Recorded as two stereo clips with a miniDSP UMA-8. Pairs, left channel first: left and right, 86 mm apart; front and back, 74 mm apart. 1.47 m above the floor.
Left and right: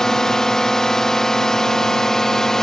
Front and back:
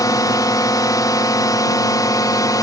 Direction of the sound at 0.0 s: 10° left.